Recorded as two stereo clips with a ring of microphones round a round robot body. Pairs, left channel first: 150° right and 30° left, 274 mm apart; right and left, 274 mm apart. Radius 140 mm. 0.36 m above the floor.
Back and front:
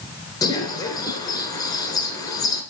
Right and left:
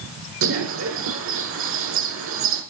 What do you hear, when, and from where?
0.4 s a bird: 135° left, 2 m